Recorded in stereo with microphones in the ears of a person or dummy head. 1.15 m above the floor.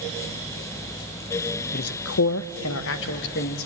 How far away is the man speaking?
About 0.5 m.